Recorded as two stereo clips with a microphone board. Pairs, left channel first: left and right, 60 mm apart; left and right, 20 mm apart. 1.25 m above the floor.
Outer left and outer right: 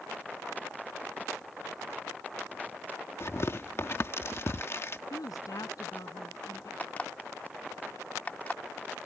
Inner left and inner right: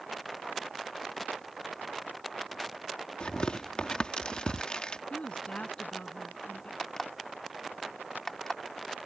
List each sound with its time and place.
3.2 s tearing paper: 50° left (ahead or behind)
5.1 s a woman speaking: 75° left (ahead or behind)
6.8 s an alarm clock: 25° left (ahead or behind)